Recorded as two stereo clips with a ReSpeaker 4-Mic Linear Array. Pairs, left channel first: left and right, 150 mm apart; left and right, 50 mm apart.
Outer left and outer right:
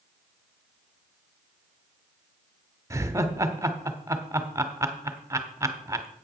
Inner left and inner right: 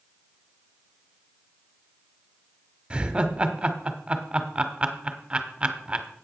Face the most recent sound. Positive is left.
turn(degrees=-20)  # may be behind; listen again after turning